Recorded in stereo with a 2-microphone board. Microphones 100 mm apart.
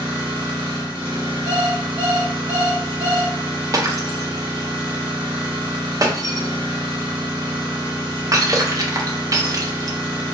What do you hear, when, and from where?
0.0 s an engine running: 60° right (ahead or behind), 1.2 m
1.5 s an alarm clock: 35° left (ahead or behind), 1.4 m
3.7 s breaking glass: 35° right (ahead or behind), 0.5 m